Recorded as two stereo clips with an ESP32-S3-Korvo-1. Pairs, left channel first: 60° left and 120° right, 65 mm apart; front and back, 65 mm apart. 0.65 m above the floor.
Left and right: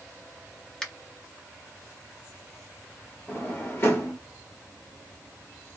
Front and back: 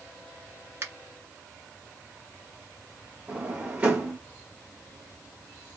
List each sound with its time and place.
0.8 s a finger snap: 140° left, 0.8 m
3.3 s a drawer: 110° left, 1.1 m